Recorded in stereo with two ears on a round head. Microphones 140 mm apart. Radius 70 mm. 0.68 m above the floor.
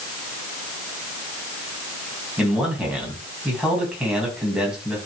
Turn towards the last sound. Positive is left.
turn(degrees=-5)  # may be behind; listen again after turning